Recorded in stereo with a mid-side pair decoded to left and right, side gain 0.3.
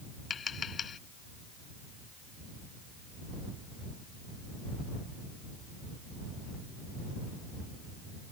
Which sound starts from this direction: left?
Tapping, at 0.3 s.